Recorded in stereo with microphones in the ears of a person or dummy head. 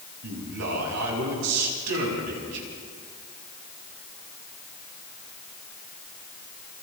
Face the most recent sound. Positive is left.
turn(degrees=-90)